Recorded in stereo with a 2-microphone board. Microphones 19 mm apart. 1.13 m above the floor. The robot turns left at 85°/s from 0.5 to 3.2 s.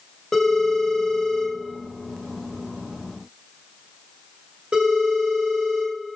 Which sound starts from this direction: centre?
A phone ringing, at 0.3 s.